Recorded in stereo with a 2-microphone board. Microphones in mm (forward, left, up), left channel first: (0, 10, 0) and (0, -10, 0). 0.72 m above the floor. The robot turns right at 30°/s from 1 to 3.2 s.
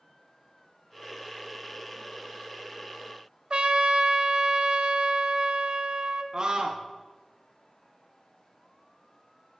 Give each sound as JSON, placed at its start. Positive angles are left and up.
{"t": 3.5, "sound": "a trumpet", "side_deg": -50, "distance_m": 0.8}
{"t": 6.3, "sound": "a scream", "side_deg": -40, "distance_m": 0.8}